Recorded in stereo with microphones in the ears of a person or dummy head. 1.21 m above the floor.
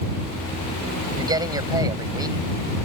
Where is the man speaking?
25° right (ahead or behind).